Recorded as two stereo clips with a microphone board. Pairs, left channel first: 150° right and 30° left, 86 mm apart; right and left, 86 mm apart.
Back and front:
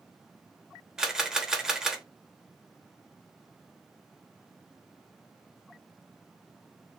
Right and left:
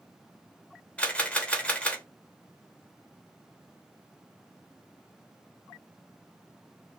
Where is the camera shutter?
40° right, 1.0 m.